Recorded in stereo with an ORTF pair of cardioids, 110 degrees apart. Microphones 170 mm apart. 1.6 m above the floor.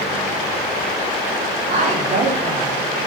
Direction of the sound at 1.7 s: 45° right.